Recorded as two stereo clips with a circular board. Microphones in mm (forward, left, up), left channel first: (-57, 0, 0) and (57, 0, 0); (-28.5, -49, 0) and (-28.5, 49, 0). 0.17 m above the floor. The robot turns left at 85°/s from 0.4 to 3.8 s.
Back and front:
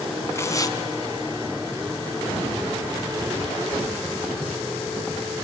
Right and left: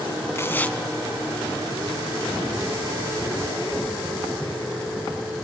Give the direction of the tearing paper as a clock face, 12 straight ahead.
4 o'clock.